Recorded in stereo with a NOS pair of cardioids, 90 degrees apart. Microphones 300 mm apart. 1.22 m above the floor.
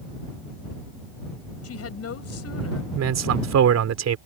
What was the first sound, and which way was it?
A woman speaking, 50° left.